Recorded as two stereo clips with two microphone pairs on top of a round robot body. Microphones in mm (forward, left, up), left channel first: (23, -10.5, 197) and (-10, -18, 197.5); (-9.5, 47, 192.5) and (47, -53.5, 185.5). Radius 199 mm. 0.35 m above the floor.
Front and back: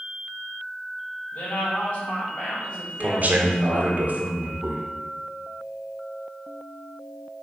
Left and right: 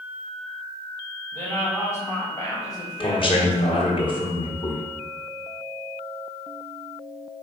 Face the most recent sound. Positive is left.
turn(degrees=155)